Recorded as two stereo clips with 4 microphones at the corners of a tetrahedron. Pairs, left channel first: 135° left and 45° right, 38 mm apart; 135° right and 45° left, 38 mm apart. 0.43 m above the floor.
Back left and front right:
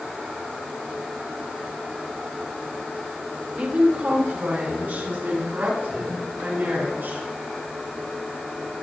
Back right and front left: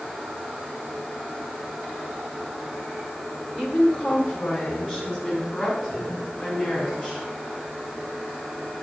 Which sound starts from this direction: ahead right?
A woman speaking, at 3.5 s.